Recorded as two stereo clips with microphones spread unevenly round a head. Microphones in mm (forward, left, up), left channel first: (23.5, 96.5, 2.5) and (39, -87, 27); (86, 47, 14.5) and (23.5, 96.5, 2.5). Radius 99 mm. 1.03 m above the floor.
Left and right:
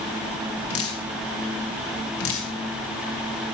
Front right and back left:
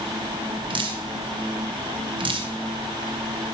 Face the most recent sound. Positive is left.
turn(degrees=120)